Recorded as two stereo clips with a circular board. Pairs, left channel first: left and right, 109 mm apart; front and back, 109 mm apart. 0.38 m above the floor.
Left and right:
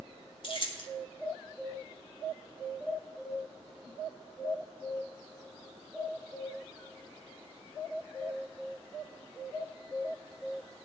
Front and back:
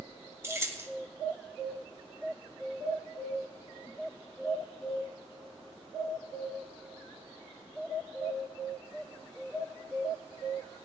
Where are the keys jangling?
115° left, 1.4 m.